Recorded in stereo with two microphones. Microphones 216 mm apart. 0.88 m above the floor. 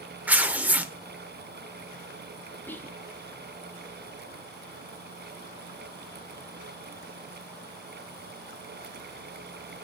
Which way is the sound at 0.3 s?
5° right (ahead or behind).